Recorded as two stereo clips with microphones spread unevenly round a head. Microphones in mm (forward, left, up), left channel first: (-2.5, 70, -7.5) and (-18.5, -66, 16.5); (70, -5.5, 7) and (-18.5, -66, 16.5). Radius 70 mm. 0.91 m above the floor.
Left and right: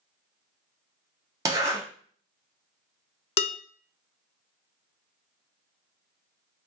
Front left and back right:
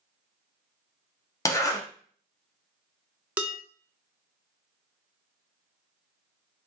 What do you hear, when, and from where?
1.4 s a zipper: 25° right, 1.1 m
3.4 s dishes clattering: 135° left, 0.6 m